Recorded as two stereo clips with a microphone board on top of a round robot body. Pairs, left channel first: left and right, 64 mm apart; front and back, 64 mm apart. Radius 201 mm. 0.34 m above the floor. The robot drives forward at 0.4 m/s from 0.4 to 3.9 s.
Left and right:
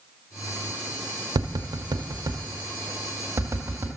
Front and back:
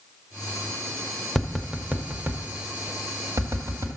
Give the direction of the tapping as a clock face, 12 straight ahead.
3 o'clock.